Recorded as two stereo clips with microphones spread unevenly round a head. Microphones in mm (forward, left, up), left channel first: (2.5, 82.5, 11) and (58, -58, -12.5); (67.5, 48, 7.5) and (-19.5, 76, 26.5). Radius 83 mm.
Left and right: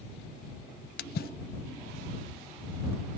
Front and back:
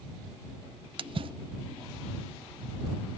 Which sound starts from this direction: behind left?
A splash, at 1.0 s.